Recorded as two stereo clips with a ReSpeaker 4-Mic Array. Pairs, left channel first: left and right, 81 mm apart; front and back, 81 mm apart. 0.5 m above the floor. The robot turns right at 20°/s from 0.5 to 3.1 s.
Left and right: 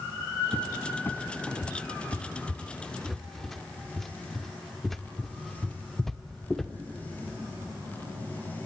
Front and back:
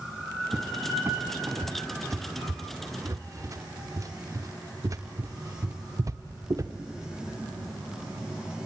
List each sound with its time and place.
0.5 s a cupboard door: 125° left, 1.0 m; by 6.7 s 175° left, 1.0 m